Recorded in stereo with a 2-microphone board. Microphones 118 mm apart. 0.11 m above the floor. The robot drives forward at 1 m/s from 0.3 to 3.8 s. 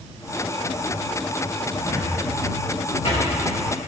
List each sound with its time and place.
1.8 s a cupboard door: 65° left (ahead or behind), 5 m; by 3.3 s 50° left (ahead or behind), 6 m